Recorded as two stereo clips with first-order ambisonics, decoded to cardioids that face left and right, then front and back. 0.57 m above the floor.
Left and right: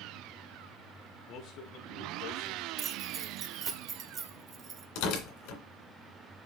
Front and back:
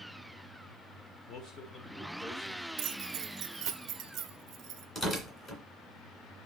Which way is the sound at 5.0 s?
70° left.